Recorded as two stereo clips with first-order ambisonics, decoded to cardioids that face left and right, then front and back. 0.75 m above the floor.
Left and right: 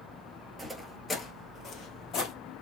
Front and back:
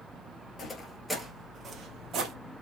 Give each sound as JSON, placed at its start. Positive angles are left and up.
{"t": 0.6, "sound": "footsteps", "azimuth_deg": -15, "distance_m": 0.7}